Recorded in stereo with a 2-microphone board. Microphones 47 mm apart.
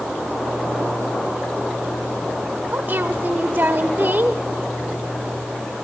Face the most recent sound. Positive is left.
turn(degrees=-45)  # may be behind; listen again after turning